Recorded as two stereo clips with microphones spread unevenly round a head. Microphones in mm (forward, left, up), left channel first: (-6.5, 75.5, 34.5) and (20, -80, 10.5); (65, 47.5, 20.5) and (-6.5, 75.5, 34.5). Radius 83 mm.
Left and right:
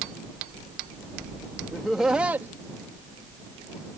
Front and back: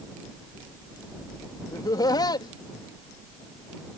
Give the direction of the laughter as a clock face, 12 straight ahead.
12 o'clock.